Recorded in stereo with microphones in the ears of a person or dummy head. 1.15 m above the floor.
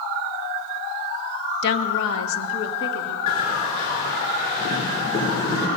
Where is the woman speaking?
60° left (ahead or behind), 0.5 m; by 3.2 s 85° left, 1.5 m.